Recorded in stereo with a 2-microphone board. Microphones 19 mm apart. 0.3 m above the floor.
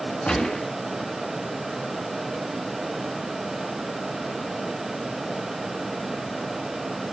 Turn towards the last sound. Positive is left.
turn(degrees=50)  # may be behind; listen again after turning